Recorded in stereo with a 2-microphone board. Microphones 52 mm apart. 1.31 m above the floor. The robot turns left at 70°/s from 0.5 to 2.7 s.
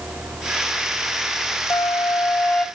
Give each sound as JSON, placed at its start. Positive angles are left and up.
{"t": 1.7, "sound": "a flute", "azimuth_deg": 80, "distance_m": 1.6}